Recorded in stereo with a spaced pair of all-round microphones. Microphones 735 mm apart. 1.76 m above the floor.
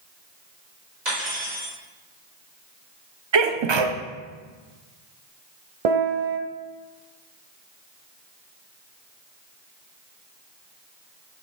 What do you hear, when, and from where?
1.1 s cutlery clinking: 75° right (ahead or behind), 3.5 m
3.3 s a sneeze: 40° right (ahead or behind), 0.6 m
5.8 s a piano: 55° right (ahead or behind), 0.8 m